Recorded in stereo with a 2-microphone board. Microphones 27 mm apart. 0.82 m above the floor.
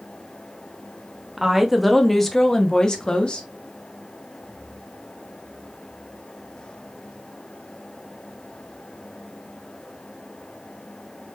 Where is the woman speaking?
15° right (ahead or behind), 1.3 m; by 3.5 s 35° left (ahead or behind), 1.5 m.